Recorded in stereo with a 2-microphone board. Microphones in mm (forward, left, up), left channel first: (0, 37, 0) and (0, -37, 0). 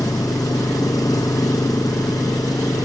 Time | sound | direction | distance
0.0 | an engine running | 55° left (ahead or behind) | ?